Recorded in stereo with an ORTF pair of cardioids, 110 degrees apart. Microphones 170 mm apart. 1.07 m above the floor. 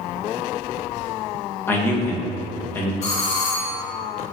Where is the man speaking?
15° left, 1.2 m.